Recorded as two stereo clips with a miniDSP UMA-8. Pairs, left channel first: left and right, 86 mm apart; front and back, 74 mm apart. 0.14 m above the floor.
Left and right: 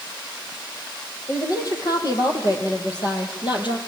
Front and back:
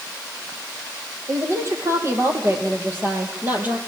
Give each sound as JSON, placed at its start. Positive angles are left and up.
{"t": 1.3, "sound": "a woman speaking", "azimuth_deg": 135, "distance_m": 5.5}